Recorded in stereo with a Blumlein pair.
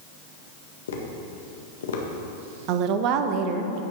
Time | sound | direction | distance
0.9 | tapping | 60° left | 1.6 m
2.7 | a woman speaking | 40° right | 1.0 m